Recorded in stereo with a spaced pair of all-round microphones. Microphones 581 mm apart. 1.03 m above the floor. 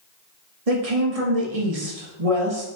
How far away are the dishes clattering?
No dishes clattering in this recording.